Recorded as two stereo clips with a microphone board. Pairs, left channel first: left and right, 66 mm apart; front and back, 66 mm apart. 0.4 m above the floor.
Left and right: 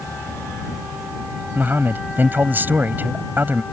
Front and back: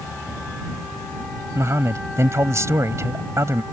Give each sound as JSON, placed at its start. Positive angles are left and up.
{"t": 1.6, "sound": "a man speaking", "azimuth_deg": -145}